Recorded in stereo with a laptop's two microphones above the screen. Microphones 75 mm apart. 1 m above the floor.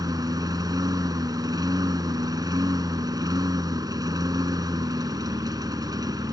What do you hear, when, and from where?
0.0 s a lawn mower: 60° right (ahead or behind)